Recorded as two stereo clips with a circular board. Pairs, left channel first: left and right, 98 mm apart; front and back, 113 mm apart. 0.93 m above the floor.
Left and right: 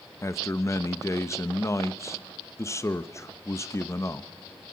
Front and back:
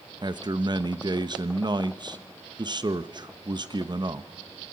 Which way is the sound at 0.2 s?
140° left.